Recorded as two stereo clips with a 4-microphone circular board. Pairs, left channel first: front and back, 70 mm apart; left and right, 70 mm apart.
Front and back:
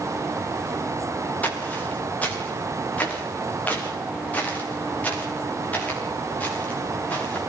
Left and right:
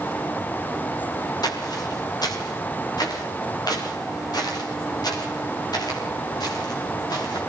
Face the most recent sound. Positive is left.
turn(degrees=70)